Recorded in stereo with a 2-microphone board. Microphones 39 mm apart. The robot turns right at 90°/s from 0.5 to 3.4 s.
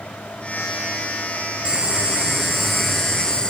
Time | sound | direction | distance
1.6 | boiling | 25° right (ahead or behind) | 1.3 m